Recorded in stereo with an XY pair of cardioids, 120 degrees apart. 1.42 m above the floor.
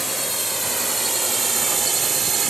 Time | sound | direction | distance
0.0 | a drone | 5° left | ?